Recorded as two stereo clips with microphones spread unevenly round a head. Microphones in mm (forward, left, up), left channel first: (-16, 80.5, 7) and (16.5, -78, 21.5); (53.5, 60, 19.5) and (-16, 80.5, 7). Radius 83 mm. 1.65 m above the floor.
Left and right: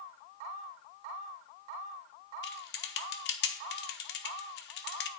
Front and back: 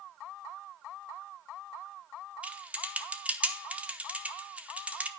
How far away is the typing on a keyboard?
About 0.9 m.